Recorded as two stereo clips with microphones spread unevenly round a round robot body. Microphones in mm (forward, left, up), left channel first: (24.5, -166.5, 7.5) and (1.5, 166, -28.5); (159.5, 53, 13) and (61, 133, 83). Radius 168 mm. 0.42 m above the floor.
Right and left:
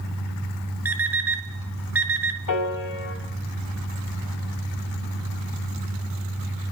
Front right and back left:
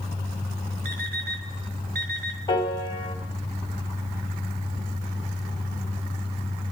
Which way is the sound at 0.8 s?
Straight behind.